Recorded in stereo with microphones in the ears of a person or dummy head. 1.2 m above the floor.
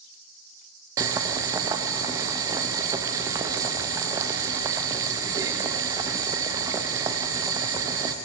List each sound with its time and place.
1.0 s boiling: 15° right (ahead or behind), 0.5 m